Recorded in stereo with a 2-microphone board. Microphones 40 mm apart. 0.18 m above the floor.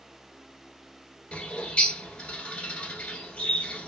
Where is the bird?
35° left (ahead or behind), 1.1 m.